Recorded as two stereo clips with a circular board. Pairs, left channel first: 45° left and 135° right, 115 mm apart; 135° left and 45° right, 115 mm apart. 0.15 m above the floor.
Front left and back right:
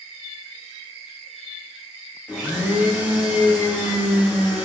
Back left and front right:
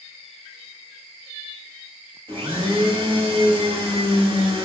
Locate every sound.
2.3 s a blender: 65° right, 0.8 m